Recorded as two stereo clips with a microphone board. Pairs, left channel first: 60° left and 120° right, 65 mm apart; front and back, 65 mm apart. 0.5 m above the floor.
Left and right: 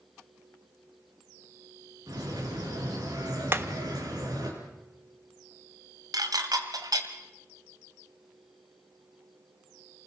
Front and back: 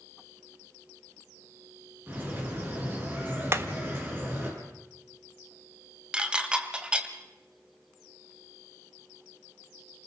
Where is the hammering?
155° right, 1.1 m.